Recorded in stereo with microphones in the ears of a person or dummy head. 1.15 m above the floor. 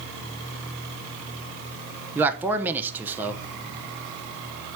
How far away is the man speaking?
About 0.9 m.